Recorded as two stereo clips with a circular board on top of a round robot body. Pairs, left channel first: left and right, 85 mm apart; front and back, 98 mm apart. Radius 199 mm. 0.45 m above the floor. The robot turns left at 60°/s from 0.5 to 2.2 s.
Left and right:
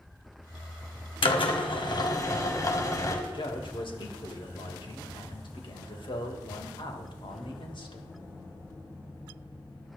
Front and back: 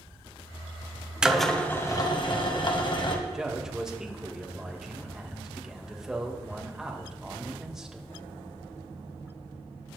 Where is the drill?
100° left, 2.0 m; by 3.2 s 40° left, 2.0 m.